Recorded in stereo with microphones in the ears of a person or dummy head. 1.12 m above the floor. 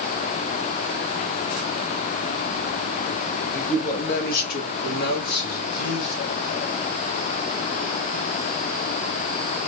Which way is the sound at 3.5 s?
45° left (ahead or behind).